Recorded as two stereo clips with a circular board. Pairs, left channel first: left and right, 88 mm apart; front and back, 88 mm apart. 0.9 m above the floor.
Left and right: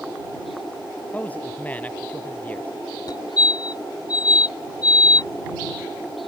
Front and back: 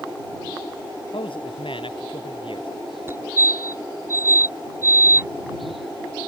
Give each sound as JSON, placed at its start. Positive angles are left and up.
{"t": 1.1, "sound": "a man speaking", "azimuth_deg": 15}
{"t": 3.1, "sound": "a fire alarm", "azimuth_deg": 120}